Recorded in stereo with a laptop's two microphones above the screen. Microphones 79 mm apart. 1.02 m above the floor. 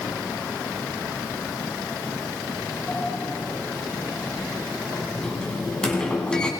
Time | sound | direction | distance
2.9 | a sliding door | 10° left (ahead or behind) | 9.5 m